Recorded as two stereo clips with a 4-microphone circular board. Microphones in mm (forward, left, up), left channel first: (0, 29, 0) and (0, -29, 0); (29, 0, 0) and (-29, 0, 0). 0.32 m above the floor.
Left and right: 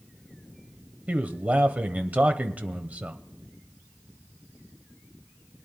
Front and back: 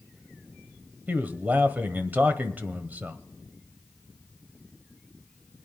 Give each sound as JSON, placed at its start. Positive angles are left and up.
{"t": 1.1, "sound": "a man speaking", "azimuth_deg": -140, "distance_m": 1.2}